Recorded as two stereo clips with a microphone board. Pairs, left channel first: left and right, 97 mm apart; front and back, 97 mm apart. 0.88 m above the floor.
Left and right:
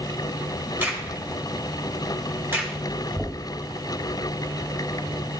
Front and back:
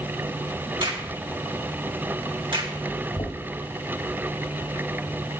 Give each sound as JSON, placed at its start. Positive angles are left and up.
{"t": 0.8, "sound": "a crack", "azimuth_deg": -155, "distance_m": 2.0}
{"t": 3.2, "sound": "knocking", "azimuth_deg": -10, "distance_m": 2.5}